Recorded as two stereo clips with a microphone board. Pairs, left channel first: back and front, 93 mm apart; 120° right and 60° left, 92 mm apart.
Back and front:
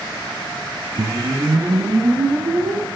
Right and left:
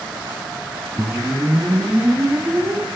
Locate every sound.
1.0 s a whoosh: straight ahead, 2.5 m